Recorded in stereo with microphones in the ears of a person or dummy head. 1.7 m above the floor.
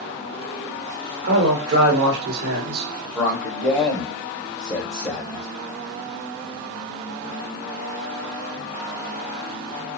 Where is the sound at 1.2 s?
70° right (ahead or behind), 1.0 m.